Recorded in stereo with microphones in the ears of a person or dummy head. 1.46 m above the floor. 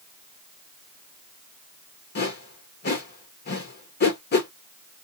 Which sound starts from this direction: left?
A whoosh, at 2.1 s.